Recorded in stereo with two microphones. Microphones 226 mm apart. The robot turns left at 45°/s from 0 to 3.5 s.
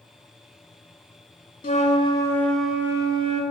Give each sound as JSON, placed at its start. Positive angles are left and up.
{"t": 1.6, "sound": "a flute", "azimuth_deg": 45, "distance_m": 0.5}